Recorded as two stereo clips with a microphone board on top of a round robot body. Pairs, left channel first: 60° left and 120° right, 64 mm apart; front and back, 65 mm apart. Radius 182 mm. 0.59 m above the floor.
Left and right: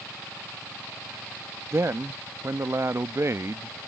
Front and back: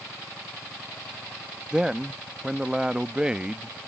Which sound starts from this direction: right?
A man speaking, at 1.7 s.